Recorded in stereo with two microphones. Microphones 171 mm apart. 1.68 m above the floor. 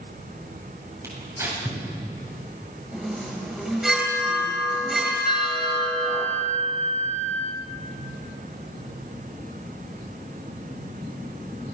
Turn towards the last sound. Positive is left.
turn(degrees=40)  # may be behind; listen again after turning